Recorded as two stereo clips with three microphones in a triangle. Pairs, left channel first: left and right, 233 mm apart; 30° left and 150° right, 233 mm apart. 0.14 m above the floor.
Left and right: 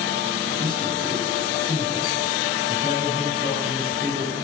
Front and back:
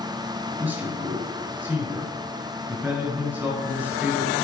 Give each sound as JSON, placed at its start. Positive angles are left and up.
{"t": 0.6, "sound": "a man speaking", "azimuth_deg": -70, "distance_m": 2.0}